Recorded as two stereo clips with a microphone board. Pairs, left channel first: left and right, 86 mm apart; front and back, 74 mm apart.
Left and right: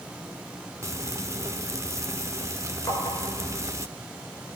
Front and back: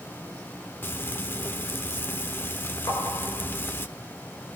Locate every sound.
0.8 s frying: 50° right, 1.1 m
2.9 s tapping: 40° left, 7 m